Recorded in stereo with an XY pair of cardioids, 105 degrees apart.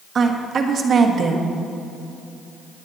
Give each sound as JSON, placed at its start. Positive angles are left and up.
{"t": 0.1, "sound": "a woman speaking", "azimuth_deg": -50, "distance_m": 1.5}